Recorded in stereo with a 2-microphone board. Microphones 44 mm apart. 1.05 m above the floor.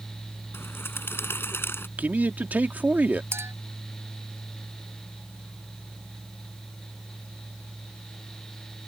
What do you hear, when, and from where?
0.5 s a bird: 60° left (ahead or behind)
2.0 s a man speaking: 40° right (ahead or behind)
3.3 s a clink: 75° right (ahead or behind)